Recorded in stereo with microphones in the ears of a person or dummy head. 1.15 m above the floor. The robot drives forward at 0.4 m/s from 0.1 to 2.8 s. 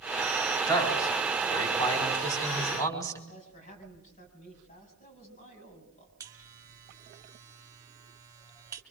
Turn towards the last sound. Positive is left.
turn(degrees=-15)  # may be behind; listen again after turning